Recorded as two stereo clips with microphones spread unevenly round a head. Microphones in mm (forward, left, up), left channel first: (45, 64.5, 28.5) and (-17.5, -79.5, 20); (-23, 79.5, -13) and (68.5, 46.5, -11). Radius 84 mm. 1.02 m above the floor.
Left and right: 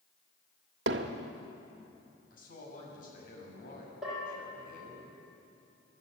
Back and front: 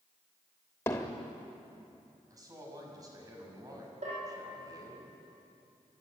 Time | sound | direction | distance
0.9 | hammering | 130° right | 1.1 m
2.3 | a man speaking | 30° left | 6.5 m
4.0 | a bell | 25° right | 9 m